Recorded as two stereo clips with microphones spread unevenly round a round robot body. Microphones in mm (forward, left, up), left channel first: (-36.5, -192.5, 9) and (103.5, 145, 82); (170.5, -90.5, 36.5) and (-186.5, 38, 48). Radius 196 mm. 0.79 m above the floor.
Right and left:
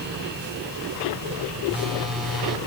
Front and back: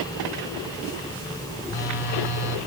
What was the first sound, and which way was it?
A phone buzzing, 20° right.